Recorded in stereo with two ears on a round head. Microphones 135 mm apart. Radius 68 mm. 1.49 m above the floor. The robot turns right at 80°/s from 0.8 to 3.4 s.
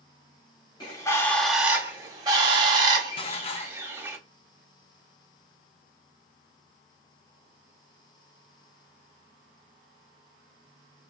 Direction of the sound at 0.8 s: 125° left.